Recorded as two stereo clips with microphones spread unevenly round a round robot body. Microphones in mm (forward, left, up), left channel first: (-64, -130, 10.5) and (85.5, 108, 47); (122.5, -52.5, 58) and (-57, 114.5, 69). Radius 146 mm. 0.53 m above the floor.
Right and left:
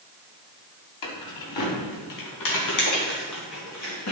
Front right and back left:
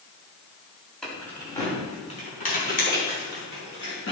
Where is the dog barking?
No dog barking in this recording.